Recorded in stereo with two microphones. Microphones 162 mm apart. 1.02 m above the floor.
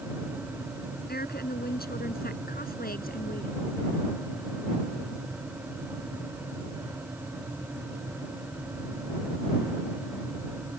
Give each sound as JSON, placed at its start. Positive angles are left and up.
{"t": 1.1, "sound": "a woman speaking", "side_deg": 75}